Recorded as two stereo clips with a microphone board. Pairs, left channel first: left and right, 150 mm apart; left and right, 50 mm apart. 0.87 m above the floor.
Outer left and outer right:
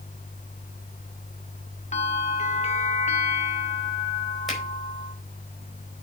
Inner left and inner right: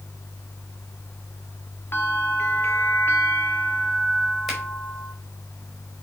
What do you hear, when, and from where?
1.9 s a bell: 50° left (ahead or behind), 1.1 m
4.5 s a finger snap: centre (ahead or behind), 4.5 m